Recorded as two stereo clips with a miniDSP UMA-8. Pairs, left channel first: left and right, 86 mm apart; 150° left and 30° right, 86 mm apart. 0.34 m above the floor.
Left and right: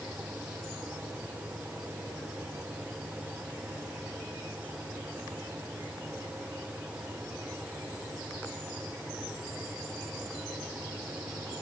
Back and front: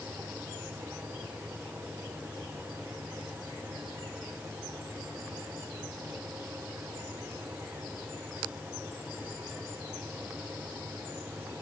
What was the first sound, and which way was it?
Only background noise.